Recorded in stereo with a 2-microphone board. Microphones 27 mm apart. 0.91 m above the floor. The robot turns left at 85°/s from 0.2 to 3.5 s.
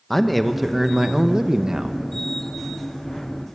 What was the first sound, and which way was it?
A man speaking, 5° left (ahead or behind).